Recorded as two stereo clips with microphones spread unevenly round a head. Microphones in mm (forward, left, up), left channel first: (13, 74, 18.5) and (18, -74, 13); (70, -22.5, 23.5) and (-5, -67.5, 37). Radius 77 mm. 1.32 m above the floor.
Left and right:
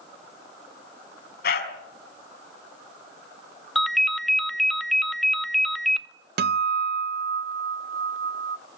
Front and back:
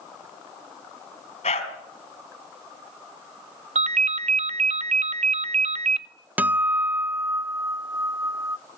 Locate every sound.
1.4 s a dog barking: 70° left, 3.5 m
3.8 s a ringtone: straight behind, 0.7 m
6.4 s a guitar: 75° right, 0.7 m